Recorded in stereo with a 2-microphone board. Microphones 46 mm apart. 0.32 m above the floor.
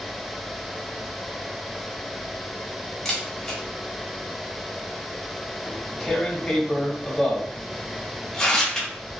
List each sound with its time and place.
3.0 s a camera shutter: 5° left (ahead or behind), 1.5 m
5.7 s tearing paper: 10° left (ahead or behind), 2 m